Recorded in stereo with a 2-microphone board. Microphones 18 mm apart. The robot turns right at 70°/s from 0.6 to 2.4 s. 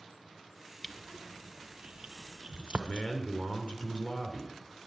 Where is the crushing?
Centre (ahead or behind), 0.9 m; by 3.1 s 50° right (ahead or behind), 0.9 m.